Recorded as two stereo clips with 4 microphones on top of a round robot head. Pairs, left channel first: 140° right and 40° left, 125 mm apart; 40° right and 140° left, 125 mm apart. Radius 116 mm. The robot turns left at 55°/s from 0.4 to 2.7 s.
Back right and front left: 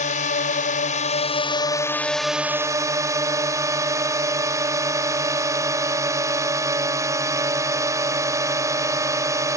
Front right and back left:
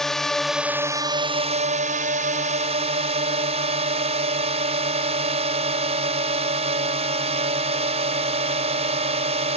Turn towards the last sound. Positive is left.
turn(degrees=105)